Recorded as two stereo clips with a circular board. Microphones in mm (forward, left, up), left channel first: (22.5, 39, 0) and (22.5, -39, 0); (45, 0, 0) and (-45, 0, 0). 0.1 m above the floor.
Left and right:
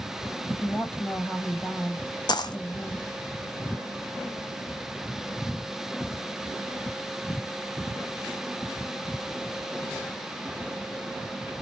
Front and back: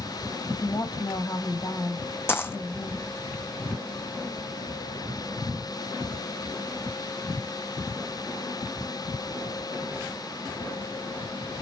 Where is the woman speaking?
15° left, 3 m.